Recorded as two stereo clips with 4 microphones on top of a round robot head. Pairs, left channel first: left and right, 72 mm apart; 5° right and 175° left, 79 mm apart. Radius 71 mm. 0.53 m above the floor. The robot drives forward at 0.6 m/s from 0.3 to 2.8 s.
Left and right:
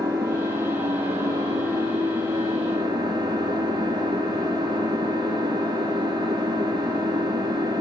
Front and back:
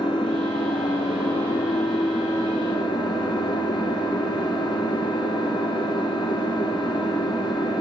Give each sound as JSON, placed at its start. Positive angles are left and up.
{"t": 0.0, "sound": "an engine running", "azimuth_deg": -30, "distance_m": 4.5}